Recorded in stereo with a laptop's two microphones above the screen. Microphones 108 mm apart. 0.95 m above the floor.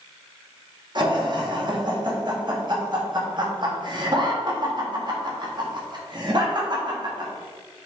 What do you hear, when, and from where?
0.9 s laughter: 45° right (ahead or behind), 1.4 m